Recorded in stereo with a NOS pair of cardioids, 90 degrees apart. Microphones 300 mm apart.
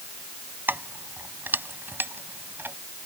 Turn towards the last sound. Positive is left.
turn(degrees=-5)